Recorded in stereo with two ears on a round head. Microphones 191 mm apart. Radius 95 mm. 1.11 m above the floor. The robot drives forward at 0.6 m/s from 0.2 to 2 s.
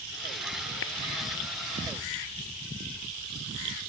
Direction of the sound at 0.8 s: 60° left (ahead or behind).